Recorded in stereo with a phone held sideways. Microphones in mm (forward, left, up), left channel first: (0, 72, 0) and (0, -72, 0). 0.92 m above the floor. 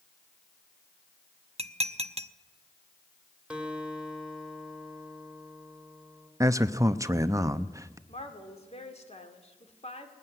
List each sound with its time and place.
1.6 s dishes clattering: 45° right (ahead or behind), 0.6 m
3.5 s a guitar: 10° right (ahead or behind), 2.5 m
6.4 s a man speaking: 20° right (ahead or behind), 0.8 m
8.1 s a woman speaking: 45° left (ahead or behind), 2.5 m